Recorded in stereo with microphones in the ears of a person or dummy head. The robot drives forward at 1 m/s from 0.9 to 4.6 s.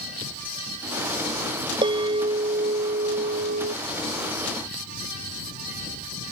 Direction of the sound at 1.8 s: 25° right (ahead or behind).